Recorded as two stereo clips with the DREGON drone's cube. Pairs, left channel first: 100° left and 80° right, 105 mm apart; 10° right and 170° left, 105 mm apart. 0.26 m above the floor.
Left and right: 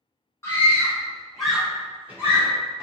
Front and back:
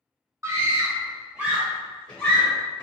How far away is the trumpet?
No trumpet in this recording.